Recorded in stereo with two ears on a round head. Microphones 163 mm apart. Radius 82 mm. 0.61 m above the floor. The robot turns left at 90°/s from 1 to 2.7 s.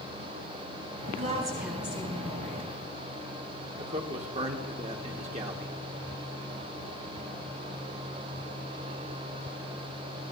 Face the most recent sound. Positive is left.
turn(degrees=-40)  # may be behind; listen again after turning